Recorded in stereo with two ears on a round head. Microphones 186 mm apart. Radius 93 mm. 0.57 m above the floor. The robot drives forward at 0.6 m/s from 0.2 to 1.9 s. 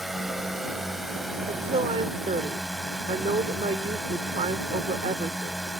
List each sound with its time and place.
0.0 s a drone: centre (ahead or behind)
1.5 s a woman speaking: 25° right (ahead or behind); by 5.6 s 30° right (ahead or behind)